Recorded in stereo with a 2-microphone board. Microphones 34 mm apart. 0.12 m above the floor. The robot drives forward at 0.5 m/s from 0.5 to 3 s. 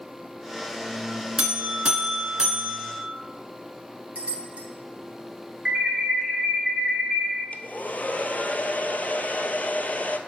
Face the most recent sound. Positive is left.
turn(degrees=45)  # may be behind; listen again after turning